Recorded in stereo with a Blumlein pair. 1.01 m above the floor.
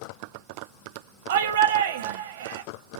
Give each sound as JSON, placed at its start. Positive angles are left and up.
{"t": 1.3, "sound": "a shout", "azimuth_deg": -60, "distance_m": 0.8}